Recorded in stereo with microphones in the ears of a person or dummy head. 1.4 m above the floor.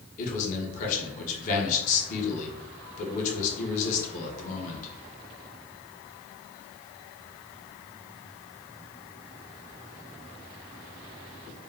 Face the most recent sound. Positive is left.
turn(degrees=40)  # may be behind; listen again after turning